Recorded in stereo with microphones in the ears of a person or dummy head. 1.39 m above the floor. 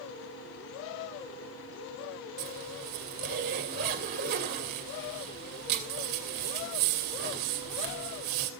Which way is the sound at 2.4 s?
50° right (ahead or behind).